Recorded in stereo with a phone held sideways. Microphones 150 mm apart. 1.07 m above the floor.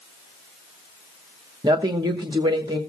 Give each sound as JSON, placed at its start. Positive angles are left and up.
{"t": 1.6, "sound": "a woman speaking", "side_deg": -30, "distance_m": 1.1}